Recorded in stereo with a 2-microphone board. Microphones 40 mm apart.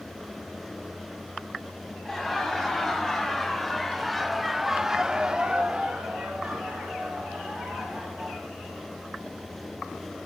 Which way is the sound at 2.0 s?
10° left (ahead or behind).